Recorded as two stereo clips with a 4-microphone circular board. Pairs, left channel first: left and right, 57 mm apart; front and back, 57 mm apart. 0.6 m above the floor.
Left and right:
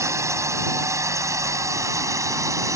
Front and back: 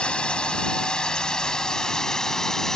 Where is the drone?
70° right; by 2.8 s 80° right.